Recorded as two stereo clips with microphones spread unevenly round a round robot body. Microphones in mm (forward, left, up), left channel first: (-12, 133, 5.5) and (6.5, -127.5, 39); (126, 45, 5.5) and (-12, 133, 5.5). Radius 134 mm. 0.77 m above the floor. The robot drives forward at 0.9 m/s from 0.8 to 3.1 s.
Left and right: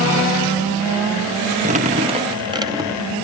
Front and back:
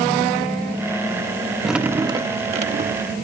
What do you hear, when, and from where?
1.6 s dripping: 125° right; by 3.1 s 170° right